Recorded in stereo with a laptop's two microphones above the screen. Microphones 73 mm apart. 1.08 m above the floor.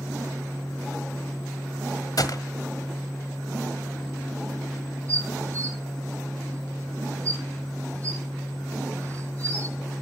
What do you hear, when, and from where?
0.0 s a fan: 70° left (ahead or behind), 1.7 m
2.2 s a gunshot: 65° left (ahead or behind), 1.5 m
5.1 s dishes clattering: 45° right (ahead or behind), 6 m